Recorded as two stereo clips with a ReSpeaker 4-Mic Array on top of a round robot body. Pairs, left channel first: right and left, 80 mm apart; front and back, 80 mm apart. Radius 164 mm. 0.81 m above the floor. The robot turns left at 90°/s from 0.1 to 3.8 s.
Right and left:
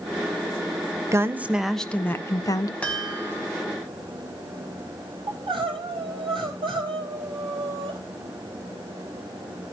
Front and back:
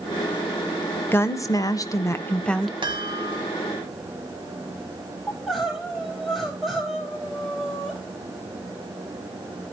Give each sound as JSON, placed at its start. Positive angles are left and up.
{"t": 1.1, "sound": "a woman speaking", "azimuth_deg": 50, "distance_m": 1.2}
{"t": 2.8, "sound": "a chime", "azimuth_deg": -165, "distance_m": 3.0}
{"t": 5.3, "sound": "crying", "azimuth_deg": 95, "distance_m": 5.0}